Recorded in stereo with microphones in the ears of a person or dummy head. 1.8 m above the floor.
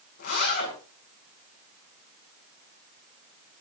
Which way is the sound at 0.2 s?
60° left (ahead or behind).